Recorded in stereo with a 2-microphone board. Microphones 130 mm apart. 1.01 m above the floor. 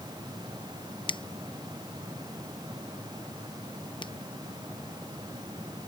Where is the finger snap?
40° left (ahead or behind).